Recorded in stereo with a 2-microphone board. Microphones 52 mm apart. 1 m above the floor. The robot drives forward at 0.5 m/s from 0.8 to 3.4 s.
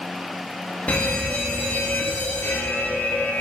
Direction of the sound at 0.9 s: 30° left (ahead or behind).